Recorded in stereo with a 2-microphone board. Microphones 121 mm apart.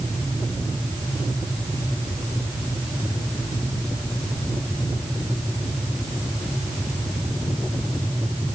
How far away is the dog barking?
No dog barking in this recording.